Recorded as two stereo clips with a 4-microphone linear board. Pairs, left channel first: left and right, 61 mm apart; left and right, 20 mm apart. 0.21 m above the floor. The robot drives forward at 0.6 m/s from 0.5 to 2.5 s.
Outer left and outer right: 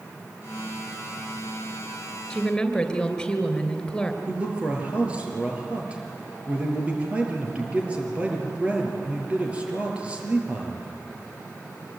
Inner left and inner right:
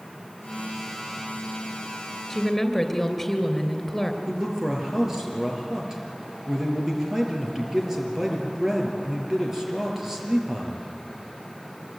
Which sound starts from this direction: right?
A man speaking, at 4.3 s.